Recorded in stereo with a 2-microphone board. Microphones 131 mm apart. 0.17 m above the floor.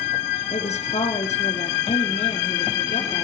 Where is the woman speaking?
55° left (ahead or behind), 3.5 m.